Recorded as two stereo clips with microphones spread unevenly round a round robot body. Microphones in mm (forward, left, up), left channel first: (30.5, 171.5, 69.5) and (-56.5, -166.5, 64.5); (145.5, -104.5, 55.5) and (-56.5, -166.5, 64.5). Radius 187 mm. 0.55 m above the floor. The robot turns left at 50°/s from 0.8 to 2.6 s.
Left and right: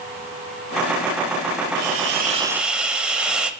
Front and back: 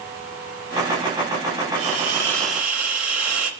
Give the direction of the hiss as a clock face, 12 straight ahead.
5 o'clock.